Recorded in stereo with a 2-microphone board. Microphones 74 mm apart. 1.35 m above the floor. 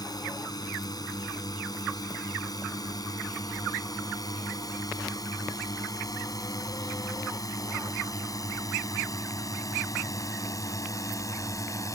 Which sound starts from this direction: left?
A drone, at 0.0 s.